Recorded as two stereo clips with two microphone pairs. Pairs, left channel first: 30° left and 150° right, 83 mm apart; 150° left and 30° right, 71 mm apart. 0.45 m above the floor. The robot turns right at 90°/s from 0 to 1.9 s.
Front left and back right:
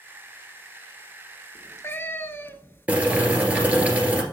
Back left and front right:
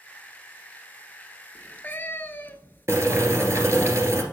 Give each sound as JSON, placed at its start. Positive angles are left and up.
{"t": 1.6, "sound": "a cat meowing", "azimuth_deg": 60, "distance_m": 0.7}
{"t": 2.9, "sound": "boiling", "azimuth_deg": -75, "distance_m": 1.8}